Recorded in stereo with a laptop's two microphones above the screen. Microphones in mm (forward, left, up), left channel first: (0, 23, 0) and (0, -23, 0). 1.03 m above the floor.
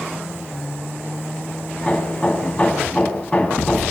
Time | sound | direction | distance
1.8 | hammering | 25° left (ahead or behind) | 6 m